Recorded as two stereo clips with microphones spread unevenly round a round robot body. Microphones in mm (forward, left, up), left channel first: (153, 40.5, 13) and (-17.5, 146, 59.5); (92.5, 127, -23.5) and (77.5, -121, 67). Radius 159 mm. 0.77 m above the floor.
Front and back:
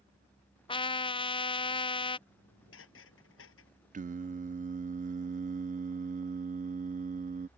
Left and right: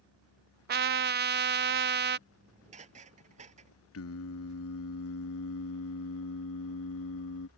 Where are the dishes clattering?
35° right.